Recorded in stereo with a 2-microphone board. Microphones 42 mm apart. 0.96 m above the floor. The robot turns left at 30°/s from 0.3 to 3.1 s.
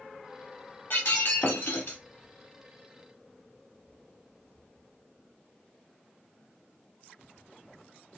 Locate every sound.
0.9 s breaking glass: 105° left, 1.5 m; by 2.0 s 70° left, 1.5 m